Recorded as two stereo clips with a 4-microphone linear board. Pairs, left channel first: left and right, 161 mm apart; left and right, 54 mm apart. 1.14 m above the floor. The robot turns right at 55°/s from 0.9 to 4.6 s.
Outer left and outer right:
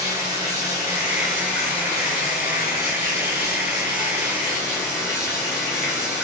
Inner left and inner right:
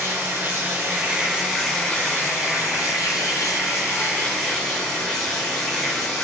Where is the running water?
40° right, 1.7 m; by 6.2 s 165° left, 1.7 m.